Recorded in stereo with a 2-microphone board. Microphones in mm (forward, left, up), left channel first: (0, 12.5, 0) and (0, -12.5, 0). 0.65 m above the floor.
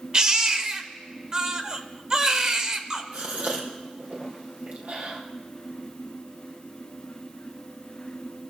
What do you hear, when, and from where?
0.1 s a baby crying: 25° right (ahead or behind), 1.2 m
3.1 s a gasp: 65° right (ahead or behind), 4 m